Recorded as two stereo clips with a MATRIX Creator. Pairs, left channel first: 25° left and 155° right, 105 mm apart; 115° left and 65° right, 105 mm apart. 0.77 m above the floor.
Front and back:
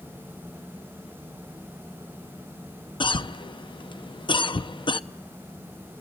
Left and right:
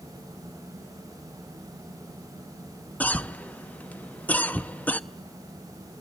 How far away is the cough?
About 0.6 m.